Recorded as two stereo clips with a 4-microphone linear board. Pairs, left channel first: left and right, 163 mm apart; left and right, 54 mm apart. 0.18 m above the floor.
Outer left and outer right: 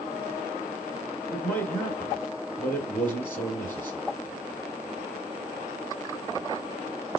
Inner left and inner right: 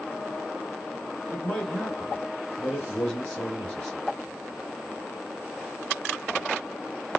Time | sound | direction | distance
1.3 | a man speaking | 10° left (ahead or behind) | 2.5 m